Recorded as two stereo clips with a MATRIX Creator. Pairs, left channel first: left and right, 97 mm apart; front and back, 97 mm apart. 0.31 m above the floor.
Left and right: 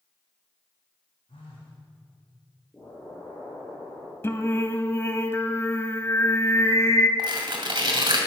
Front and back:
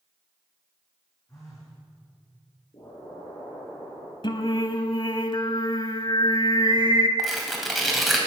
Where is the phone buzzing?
60° left, 4.5 m.